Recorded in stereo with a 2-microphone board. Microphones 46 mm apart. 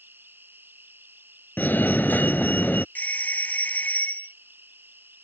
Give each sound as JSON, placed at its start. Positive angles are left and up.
{"t": 0.0, "sound": "an insect", "side_deg": -50}
{"t": 1.6, "sound": "a fire alarm", "side_deg": 40}
{"t": 3.0, "sound": "a doorbell", "side_deg": 40}